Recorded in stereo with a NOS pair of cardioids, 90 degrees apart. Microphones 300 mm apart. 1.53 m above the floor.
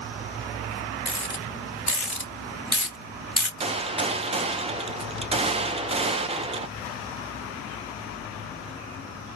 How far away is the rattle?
About 2 m.